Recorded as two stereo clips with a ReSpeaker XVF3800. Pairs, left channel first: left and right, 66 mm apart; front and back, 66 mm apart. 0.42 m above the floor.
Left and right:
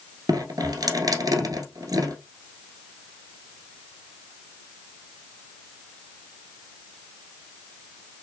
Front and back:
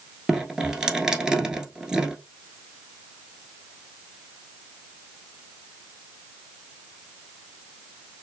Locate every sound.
0.3 s dripping: 100° right, 1.2 m